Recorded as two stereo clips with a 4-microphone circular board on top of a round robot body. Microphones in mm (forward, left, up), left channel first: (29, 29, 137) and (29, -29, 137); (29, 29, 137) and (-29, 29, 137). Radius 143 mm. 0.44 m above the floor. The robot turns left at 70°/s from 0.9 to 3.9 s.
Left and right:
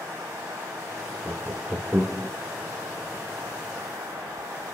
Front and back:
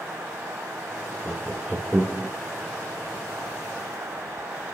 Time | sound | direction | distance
1.2 | laughter | 85° right | 0.9 m